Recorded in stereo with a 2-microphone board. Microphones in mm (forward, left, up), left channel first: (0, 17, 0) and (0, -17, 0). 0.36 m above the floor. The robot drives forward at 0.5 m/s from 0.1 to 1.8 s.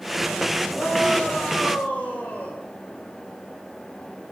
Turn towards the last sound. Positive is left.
turn(degrees=80)